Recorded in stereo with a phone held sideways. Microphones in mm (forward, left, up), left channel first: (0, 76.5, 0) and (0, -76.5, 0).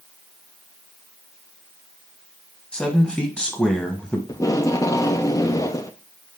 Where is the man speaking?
5° left (ahead or behind), 1.3 m.